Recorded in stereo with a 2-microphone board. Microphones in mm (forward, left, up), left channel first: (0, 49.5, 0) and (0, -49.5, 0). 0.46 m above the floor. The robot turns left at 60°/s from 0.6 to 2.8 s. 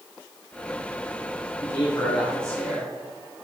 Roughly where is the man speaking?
Ahead left.